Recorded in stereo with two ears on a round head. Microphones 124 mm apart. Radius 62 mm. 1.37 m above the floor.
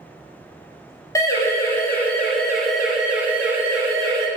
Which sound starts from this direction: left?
A siren, at 1.1 s.